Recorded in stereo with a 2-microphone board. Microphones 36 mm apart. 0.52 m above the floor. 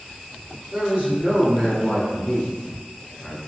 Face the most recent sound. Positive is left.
turn(degrees=15)  # may be behind; listen again after turning